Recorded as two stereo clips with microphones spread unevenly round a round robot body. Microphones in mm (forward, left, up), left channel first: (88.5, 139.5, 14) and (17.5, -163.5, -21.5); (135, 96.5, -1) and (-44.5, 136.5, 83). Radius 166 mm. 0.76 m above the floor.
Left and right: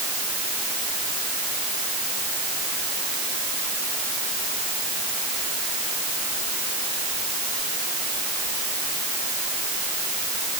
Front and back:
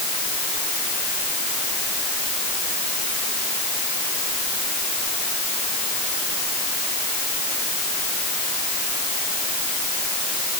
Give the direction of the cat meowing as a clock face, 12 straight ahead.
No cat meowing in this recording.